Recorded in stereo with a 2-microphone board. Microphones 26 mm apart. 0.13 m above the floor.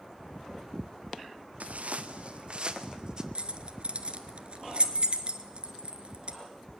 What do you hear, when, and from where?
1.6 s footsteps: 75° right (ahead or behind), 1.5 m; by 3.2 s 30° right (ahead or behind), 2.5 m
3.4 s keys jangling: 50° right (ahead or behind), 1.5 m